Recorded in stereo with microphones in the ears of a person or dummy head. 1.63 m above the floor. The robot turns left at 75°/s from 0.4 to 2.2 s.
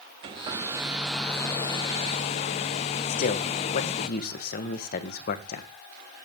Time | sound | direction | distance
0.2 | a hair dryer | 20° right (ahead or behind) | 0.7 m
3.1 | a man speaking | 50° left (ahead or behind) | 1.6 m